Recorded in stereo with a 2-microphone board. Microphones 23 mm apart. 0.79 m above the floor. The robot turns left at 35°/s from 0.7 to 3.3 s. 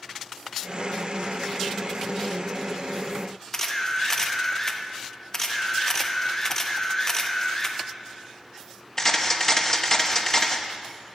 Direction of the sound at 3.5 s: 20° left (ahead or behind).